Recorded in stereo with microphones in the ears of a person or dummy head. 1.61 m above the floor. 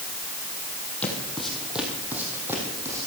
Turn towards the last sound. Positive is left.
turn(degrees=-15)  # may be behind; listen again after turning